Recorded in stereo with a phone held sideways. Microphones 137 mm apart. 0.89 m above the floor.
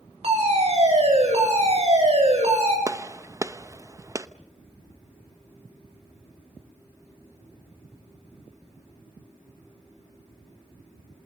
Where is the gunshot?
25° right (ahead or behind), 0.8 m.